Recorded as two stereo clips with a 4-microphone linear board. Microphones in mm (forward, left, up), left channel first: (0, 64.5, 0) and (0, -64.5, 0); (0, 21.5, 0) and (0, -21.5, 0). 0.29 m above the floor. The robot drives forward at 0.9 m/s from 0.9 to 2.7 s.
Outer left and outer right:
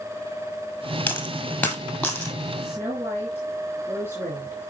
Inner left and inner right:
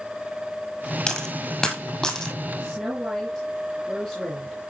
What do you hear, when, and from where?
1.1 s a dropped coin: 15° left (ahead or behind), 1.8 m; by 2.4 s 10° left (ahead or behind), 3 m
2.6 s a woman speaking: 15° right (ahead or behind), 4 m